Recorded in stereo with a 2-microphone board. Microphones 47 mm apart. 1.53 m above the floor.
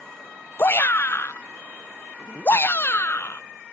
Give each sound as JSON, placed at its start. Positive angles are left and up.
{"t": 0.6, "sound": "a shout", "side_deg": 45}